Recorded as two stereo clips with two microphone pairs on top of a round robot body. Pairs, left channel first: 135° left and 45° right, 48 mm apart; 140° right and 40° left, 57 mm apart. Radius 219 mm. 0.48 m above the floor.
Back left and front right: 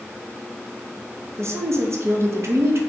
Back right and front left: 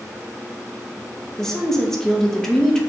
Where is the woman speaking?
65° right, 1.0 m.